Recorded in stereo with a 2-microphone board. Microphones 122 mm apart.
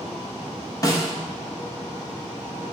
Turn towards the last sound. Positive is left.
turn(degrees=25)  # may be behind; listen again after turning